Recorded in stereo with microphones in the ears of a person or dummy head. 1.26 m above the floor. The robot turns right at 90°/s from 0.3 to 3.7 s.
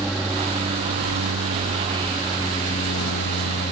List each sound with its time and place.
0.0 s an aircraft: centre (ahead or behind); by 3.7 s 40° left (ahead or behind)